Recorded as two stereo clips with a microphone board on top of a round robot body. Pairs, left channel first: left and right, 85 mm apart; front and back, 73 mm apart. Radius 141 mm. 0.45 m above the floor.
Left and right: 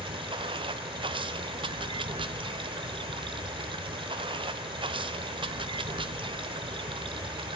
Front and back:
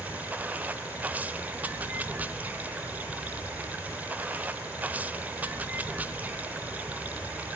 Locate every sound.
0.0 s running water: 110° right, 0.8 m